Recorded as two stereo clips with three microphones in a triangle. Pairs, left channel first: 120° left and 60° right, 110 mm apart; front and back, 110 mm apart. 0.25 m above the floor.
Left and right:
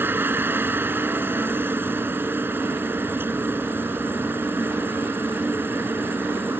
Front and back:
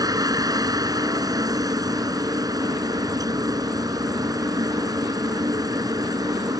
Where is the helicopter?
130° right.